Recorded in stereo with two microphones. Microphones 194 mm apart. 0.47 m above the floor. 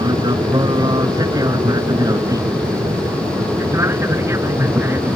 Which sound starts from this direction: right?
An aircraft, at 0.0 s.